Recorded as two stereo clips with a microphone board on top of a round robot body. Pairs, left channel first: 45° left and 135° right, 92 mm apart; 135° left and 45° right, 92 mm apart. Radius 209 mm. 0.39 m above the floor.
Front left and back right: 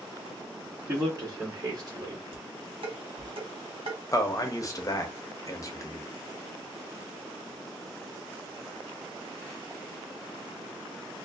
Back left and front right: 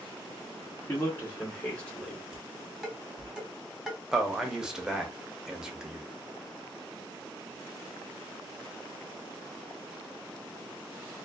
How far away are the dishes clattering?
About 1.3 m.